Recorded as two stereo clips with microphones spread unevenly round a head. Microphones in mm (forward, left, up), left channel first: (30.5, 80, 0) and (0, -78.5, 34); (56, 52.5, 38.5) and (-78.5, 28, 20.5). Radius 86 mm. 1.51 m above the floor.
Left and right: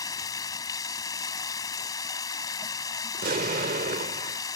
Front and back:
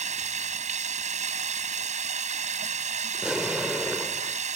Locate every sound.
0.0 s running water: 155° left
3.1 s an explosion: 80° right